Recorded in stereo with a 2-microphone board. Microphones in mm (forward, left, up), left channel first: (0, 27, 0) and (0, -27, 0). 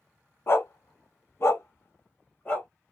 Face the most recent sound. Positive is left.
turn(degrees=30)  # may be behind; listen again after turning